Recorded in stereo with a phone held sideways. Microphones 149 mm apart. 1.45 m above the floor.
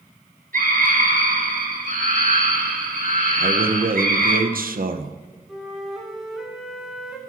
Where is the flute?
Centre (ahead or behind), 2.0 m.